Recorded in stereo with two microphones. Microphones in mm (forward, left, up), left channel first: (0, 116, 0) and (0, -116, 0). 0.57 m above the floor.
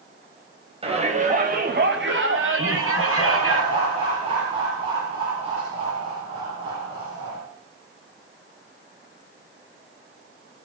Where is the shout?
25° right (ahead or behind), 4 m; by 3.6 s 75° right (ahead or behind), 5 m.